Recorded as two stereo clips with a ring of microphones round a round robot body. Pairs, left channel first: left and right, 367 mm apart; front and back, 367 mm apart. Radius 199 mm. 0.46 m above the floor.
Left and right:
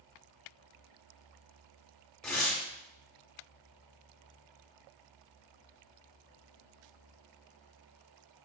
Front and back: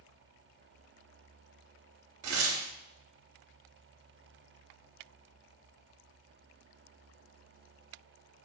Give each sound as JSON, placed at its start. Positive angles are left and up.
{"t": 2.2, "sound": "tearing paper", "azimuth_deg": 175, "distance_m": 0.8}